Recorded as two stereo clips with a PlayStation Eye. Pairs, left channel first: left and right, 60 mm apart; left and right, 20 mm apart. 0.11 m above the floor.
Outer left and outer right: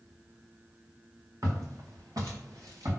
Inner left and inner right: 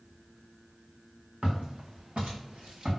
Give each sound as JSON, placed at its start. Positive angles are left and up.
{"t": 1.4, "sound": "footsteps", "side_deg": -60, "distance_m": 2.0}